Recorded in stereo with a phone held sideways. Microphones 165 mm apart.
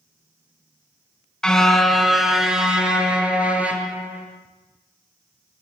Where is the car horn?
5° left (ahead or behind), 3 m; by 4.2 s 10° right (ahead or behind), 6.5 m.